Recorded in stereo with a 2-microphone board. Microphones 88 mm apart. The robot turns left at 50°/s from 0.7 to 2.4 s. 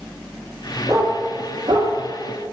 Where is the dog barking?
35° right (ahead or behind), 1.5 m; by 2.5 s 55° right (ahead or behind), 1.5 m.